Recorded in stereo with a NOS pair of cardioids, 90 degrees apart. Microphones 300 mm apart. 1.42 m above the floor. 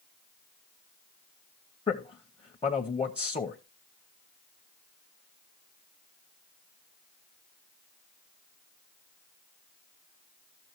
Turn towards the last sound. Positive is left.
turn(degrees=20)